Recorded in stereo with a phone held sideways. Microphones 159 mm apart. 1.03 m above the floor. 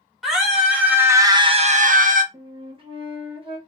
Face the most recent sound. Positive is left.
turn(degrees=-35)  # may be behind; listen again after turning